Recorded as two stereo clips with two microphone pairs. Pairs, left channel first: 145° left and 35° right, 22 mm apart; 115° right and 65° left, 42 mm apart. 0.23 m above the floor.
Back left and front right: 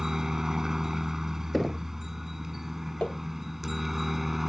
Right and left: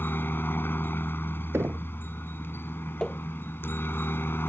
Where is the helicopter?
100° right; by 4.5 s 120° right.